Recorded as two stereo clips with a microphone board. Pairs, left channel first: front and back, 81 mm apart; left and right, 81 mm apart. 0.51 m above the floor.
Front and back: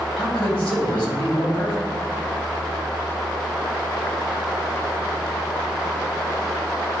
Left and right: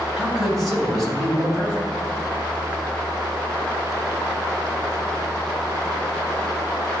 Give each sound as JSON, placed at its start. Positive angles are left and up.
{"t": 0.2, "sound": "a man speaking", "azimuth_deg": 0, "distance_m": 3.0}